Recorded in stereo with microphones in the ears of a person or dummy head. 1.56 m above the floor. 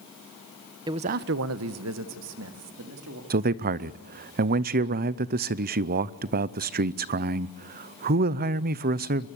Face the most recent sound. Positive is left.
turn(degrees=-45)  # may be behind; listen again after turning